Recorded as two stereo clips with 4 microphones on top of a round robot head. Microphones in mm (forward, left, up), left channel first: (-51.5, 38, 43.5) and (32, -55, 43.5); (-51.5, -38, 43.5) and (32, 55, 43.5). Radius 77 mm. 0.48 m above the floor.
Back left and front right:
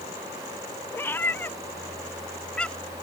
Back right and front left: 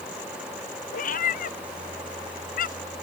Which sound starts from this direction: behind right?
A cat meowing, at 0.9 s.